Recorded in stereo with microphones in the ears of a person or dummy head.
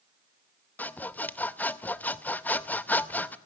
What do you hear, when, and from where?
0.8 s sawing: 10° left (ahead or behind), 0.6 m